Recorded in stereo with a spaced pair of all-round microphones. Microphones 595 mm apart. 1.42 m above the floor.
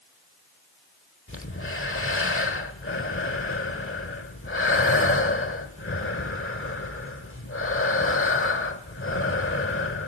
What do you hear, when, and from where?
1.3 s breathing: 20° left (ahead or behind), 1.3 m